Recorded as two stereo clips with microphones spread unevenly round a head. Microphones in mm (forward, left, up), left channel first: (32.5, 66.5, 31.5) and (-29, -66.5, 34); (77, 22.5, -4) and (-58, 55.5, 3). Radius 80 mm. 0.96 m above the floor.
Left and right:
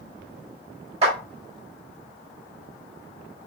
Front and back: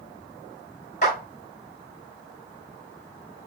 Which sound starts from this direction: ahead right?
A clap, at 1.0 s.